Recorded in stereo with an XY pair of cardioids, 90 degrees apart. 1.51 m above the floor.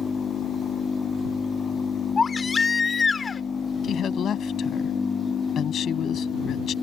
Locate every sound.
2.2 s a baby crying: 40° left
3.8 s a woman speaking: 70° left